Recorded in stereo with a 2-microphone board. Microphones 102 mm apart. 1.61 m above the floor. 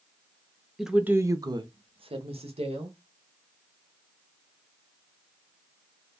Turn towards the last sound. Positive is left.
turn(degrees=-80)